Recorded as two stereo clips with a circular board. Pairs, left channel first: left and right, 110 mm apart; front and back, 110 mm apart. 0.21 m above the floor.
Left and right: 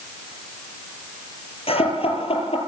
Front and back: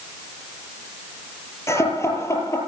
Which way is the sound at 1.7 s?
65° left.